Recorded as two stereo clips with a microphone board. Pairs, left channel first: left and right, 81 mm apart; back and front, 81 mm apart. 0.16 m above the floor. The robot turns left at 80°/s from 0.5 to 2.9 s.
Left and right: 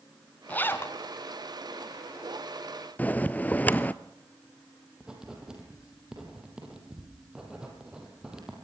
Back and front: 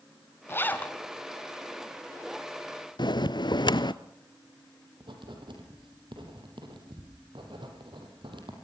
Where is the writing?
10° right, 5 m.